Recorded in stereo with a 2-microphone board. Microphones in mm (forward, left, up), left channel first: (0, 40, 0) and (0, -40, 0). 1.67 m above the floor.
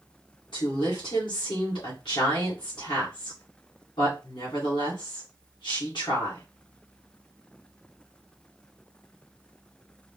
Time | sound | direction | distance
0.5 | a woman speaking | 80° left | 1.9 m